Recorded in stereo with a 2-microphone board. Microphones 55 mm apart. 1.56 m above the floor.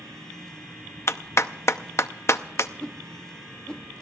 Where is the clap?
55° left (ahead or behind), 0.6 m.